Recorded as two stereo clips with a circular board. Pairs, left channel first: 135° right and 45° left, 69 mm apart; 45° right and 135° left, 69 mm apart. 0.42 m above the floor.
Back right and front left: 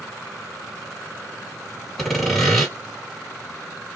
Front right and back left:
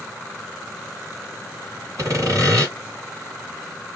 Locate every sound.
2.0 s sawing: 140° left, 2.5 m